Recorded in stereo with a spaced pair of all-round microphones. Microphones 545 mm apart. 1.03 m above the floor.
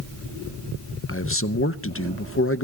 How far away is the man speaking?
About 0.6 m.